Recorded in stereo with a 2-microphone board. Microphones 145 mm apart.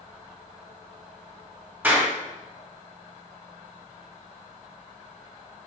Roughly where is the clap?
Centre.